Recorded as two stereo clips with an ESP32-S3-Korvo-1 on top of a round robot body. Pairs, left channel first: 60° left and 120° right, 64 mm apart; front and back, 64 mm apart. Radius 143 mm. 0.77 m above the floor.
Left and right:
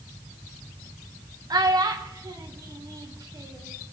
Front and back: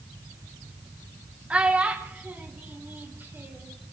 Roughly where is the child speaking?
Right.